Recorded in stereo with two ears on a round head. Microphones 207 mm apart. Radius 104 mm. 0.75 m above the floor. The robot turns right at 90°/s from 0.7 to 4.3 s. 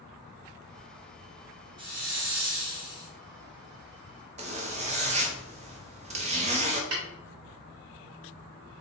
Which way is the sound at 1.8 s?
160° right.